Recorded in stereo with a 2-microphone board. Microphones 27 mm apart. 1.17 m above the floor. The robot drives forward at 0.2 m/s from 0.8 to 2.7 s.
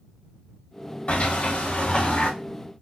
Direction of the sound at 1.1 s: 45° left (ahead or behind).